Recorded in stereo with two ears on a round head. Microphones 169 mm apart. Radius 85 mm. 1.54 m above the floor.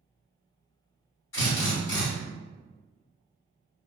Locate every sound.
1.3 s a drill: 65° left (ahead or behind), 2.0 m